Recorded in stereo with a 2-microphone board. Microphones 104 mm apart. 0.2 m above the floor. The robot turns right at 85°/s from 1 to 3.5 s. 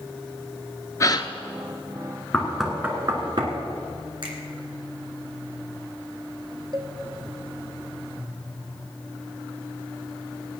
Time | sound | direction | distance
1.0 | a gasp | 30° left (ahead or behind) | 0.7 m
2.3 | knocking | 20° left (ahead or behind) | 2.0 m
4.2 | a finger snap | 60° right (ahead or behind) | 2.5 m
6.7 | a cowbell | 45° right (ahead or behind) | 1.2 m